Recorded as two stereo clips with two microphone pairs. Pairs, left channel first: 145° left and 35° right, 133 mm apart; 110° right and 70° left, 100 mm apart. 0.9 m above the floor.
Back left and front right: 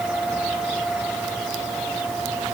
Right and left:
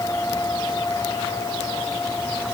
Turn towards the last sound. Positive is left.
No sound to turn to.